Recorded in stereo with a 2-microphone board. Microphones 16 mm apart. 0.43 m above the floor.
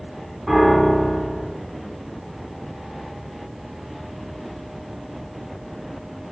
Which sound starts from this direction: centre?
A piano, at 0.5 s.